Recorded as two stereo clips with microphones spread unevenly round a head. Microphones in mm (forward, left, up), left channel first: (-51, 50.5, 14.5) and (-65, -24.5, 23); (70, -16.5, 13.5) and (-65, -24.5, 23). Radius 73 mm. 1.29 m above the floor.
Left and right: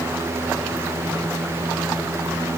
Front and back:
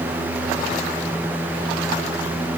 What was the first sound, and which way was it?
Only background noise.